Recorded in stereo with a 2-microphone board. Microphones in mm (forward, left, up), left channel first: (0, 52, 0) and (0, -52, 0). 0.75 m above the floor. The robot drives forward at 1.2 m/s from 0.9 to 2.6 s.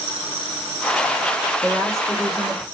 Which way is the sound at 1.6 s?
10° left (ahead or behind).